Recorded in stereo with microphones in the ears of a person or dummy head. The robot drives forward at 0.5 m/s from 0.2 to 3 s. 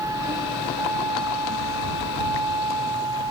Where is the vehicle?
20° right (ahead or behind).